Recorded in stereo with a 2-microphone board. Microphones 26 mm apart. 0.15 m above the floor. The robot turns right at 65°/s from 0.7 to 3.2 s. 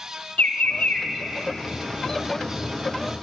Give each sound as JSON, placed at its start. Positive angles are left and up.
{"t": 0.4, "sound": "a bird", "side_deg": 70, "distance_m": 1.3}